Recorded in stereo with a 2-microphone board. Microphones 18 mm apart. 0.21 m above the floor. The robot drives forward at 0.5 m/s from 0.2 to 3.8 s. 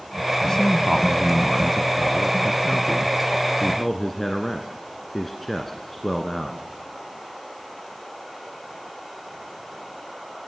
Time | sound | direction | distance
0.4 | a man speaking | 30° left (ahead or behind) | 1.0 m